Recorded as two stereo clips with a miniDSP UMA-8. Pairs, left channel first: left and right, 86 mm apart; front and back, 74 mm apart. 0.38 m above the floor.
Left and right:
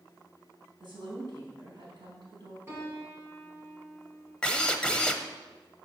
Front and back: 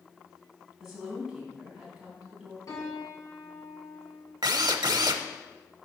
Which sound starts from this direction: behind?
A drill, at 4.4 s.